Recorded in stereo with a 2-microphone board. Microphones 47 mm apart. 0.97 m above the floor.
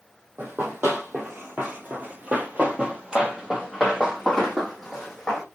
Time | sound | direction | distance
0.4 | running footsteps | 40° right (ahead or behind) | 1.5 m